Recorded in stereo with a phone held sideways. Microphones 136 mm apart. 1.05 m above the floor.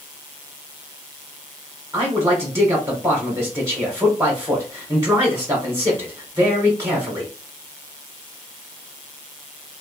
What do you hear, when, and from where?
1.9 s a man speaking: 20° right (ahead or behind), 0.8 m